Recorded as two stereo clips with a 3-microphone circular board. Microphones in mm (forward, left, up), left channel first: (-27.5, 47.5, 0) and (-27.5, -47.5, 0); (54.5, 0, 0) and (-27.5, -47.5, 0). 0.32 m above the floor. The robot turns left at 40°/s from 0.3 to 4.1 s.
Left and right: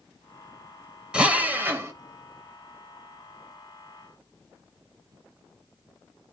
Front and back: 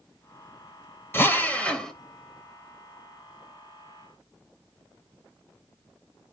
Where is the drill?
20° right, 1.3 m; by 1.9 s 50° right, 1.3 m.